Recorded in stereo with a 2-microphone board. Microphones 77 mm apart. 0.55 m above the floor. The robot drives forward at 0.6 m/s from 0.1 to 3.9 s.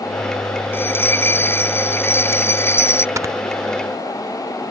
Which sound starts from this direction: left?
A bell, at 0.7 s.